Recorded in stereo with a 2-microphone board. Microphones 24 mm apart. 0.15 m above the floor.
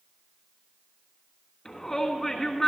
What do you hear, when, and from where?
1.6 s a shout: 20° left (ahead or behind), 1.5 m